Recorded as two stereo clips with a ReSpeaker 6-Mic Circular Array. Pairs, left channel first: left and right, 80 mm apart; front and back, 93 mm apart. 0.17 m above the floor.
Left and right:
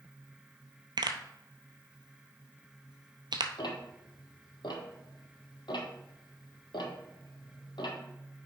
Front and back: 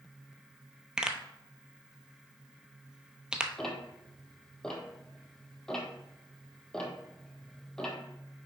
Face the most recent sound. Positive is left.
turn(degrees=85)